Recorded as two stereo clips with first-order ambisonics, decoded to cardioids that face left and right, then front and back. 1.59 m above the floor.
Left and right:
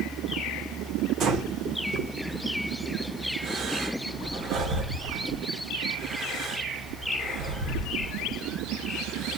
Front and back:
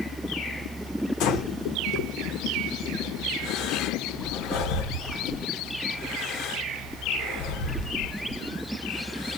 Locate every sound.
1.2 s breathing: 40° right, 0.9 m